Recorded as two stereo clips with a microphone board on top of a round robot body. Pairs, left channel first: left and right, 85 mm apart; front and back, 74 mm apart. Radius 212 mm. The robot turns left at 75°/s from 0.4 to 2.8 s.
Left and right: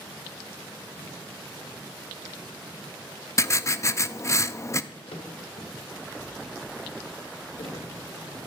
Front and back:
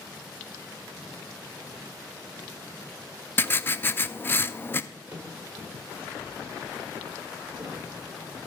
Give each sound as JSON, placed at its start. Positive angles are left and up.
{"t": 3.4, "sound": "writing", "azimuth_deg": 50, "distance_m": 0.7}
{"t": 4.9, "sound": "a drawer", "azimuth_deg": 105, "distance_m": 1.6}